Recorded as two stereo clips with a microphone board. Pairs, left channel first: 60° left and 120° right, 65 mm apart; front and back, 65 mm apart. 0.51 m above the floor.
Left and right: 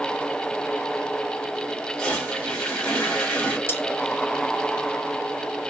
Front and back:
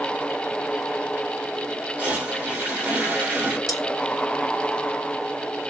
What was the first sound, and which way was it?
A toilet flushing, 130° left.